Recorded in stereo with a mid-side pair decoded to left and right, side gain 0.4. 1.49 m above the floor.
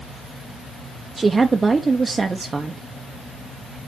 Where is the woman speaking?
30° right, 0.8 m.